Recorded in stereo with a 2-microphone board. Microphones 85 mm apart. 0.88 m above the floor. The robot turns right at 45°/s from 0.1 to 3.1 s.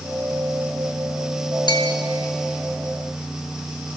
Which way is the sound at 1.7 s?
55° left (ahead or behind).